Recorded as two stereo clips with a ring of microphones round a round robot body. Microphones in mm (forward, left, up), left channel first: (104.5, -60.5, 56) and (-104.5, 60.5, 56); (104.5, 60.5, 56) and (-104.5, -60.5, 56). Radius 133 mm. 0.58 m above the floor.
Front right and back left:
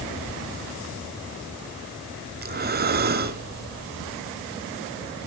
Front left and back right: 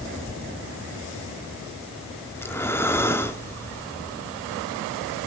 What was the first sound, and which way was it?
Breathing, 110° left.